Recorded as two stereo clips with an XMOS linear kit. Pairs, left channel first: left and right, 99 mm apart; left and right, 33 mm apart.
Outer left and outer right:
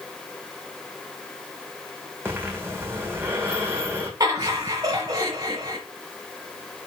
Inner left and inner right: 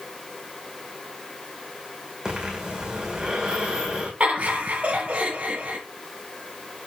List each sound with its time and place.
2.2 s breathing: 25° right (ahead or behind), 2.5 m
4.2 s laughter: 40° right (ahead or behind), 1.4 m